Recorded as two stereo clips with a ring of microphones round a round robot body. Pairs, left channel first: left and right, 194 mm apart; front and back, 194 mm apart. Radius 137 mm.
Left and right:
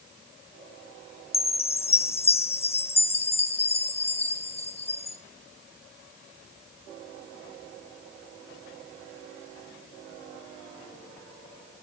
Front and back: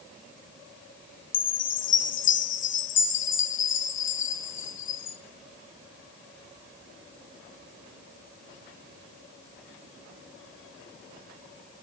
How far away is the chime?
About 0.6 m.